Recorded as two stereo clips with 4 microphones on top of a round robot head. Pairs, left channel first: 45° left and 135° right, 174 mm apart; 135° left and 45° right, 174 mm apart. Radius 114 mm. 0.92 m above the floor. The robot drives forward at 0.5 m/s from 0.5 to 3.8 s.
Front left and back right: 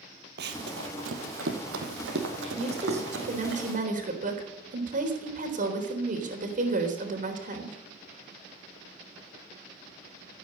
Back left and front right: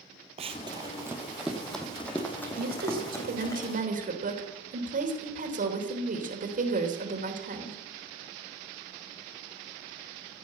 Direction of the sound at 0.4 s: 100° right.